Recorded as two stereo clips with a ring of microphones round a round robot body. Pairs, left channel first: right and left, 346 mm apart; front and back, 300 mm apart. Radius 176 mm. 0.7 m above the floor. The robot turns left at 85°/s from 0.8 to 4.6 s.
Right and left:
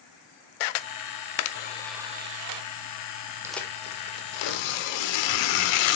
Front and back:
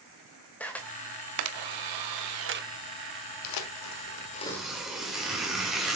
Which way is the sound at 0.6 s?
85° right.